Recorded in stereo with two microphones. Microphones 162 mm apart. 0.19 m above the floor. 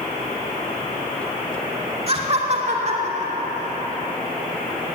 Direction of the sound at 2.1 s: 40° right (ahead or behind).